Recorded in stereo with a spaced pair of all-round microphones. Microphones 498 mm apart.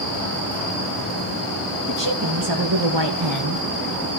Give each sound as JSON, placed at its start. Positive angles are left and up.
{"t": 1.9, "sound": "a woman speaking", "side_deg": -40, "distance_m": 2.5}